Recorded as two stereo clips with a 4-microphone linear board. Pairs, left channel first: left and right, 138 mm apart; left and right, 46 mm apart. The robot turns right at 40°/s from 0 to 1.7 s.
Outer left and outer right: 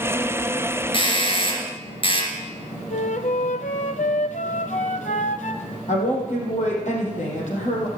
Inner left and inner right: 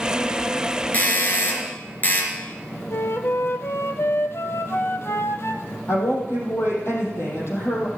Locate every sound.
0.9 s a doorbell: 70° left, 2.5 m; by 2.3 s 100° left, 2.5 m
2.9 s a flute: 65° left (ahead or behind), 0.6 m
5.9 s a woman speaking: 65° left (ahead or behind), 4 m